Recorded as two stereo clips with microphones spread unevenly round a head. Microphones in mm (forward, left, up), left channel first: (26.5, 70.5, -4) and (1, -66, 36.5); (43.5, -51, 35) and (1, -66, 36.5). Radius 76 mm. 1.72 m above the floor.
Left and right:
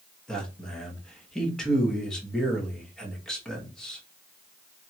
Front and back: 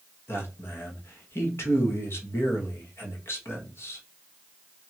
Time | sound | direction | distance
0.3 | a man speaking | 10° right | 1.4 m